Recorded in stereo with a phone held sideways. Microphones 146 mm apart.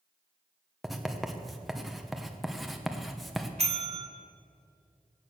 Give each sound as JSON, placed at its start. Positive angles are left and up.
{"t": 0.8, "sound": "writing", "side_deg": 0, "distance_m": 1.2}
{"t": 3.6, "sound": "a bell", "side_deg": -45, "distance_m": 1.8}